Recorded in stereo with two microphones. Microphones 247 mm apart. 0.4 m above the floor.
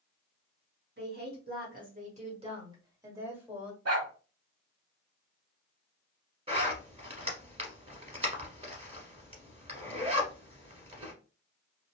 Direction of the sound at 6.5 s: 25° right (ahead or behind).